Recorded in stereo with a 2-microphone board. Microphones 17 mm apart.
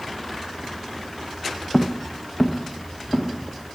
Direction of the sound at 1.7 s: 15° left (ahead or behind).